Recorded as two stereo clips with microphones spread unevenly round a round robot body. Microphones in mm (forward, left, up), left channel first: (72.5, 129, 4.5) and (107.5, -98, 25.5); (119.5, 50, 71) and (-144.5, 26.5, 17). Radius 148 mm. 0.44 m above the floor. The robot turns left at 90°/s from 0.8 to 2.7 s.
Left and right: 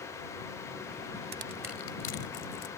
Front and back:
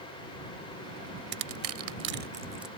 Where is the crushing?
135° right; by 2.7 s 100° left.